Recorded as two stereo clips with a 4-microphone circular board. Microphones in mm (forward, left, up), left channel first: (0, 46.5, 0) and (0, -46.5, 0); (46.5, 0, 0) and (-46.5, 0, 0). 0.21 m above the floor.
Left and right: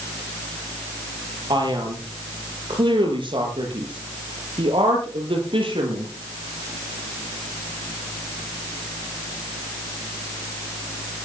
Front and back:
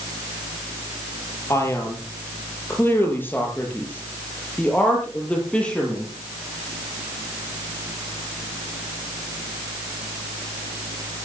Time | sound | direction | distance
1.5 | a man speaking | 60° right | 5.5 m